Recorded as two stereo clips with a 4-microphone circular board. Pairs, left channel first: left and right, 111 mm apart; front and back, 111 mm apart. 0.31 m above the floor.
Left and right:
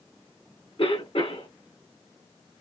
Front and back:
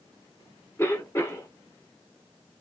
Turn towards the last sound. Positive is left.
turn(degrees=65)